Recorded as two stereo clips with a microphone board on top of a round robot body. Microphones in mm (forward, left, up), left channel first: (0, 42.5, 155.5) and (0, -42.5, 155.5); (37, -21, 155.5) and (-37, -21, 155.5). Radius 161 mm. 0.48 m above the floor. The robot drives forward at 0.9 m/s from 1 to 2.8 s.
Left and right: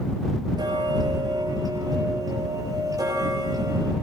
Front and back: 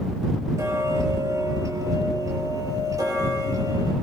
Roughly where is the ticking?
Behind right.